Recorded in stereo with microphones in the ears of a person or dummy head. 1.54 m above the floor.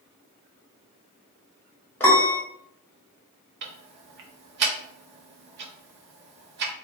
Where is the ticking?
60° right (ahead or behind), 0.7 m.